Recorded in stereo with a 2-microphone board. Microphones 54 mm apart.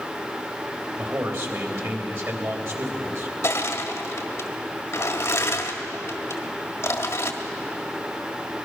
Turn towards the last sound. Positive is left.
turn(degrees=55)  # may be behind; listen again after turning